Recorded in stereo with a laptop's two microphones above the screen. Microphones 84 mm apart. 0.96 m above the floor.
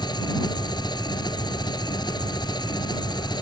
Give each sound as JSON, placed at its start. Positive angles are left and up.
{"t": 0.0, "sound": "an engine running", "side_deg": 55}